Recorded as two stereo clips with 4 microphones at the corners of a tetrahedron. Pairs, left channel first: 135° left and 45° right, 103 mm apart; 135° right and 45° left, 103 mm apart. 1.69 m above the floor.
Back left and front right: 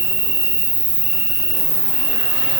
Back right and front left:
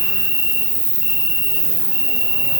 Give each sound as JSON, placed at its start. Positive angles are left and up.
{"t": 0.0, "sound": "an insect", "azimuth_deg": 170, "distance_m": 1.9}